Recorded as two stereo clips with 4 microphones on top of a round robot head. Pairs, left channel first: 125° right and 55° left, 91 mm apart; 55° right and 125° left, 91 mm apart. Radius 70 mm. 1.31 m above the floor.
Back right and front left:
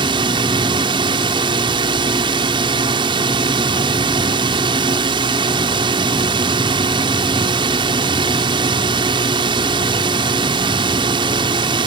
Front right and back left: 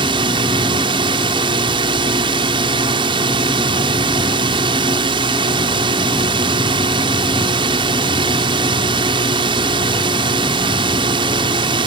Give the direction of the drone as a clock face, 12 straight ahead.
9 o'clock.